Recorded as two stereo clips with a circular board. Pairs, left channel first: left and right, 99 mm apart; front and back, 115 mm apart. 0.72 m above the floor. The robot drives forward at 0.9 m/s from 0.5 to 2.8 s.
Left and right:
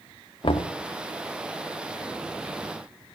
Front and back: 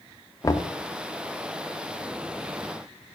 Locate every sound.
0.4 s knocking: 60° left, 0.6 m; by 0.7 s 80° left, 0.6 m